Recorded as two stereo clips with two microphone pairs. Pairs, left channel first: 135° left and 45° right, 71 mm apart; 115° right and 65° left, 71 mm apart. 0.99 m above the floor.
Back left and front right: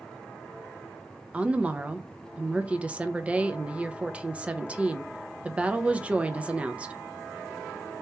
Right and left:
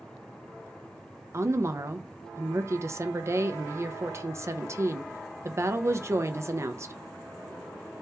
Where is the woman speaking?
25° left, 0.5 m.